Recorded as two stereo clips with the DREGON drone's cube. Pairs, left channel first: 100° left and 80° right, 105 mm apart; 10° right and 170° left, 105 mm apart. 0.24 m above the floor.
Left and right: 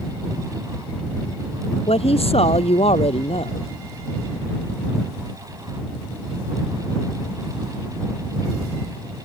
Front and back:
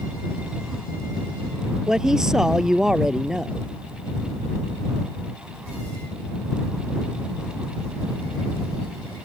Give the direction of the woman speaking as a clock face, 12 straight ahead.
9 o'clock.